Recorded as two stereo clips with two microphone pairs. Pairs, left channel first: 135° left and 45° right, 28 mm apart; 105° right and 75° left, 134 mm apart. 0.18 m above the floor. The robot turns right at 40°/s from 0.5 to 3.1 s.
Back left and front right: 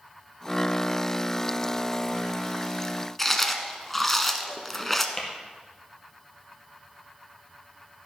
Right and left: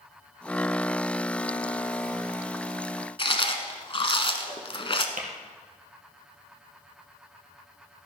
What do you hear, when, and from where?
3.2 s chewing: 140° right, 0.9 m
5.2 s tapping: 65° left, 2.5 m